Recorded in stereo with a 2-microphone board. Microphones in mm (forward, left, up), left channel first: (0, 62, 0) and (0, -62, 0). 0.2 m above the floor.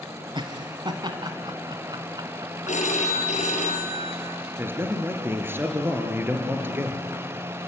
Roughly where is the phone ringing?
Left.